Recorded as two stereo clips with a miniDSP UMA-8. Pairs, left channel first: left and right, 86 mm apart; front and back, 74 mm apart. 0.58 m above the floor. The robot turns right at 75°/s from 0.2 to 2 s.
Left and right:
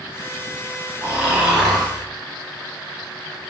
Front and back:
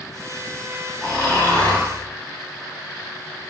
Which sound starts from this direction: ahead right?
Snoring, at 1.0 s.